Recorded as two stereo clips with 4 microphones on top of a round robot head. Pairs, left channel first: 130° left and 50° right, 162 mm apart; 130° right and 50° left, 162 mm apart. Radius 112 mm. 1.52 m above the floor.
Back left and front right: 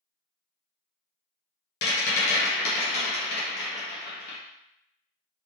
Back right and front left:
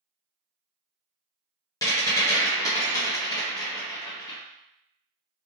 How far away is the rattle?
About 0.6 m.